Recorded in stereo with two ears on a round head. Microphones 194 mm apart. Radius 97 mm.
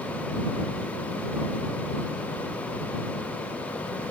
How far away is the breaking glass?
No breaking glass in this recording.